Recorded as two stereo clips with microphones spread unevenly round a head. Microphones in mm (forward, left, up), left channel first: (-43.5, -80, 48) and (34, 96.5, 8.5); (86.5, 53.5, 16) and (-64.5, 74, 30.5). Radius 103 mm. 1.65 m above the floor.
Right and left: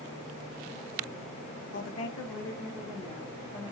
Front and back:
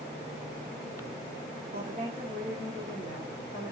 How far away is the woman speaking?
About 0.6 m.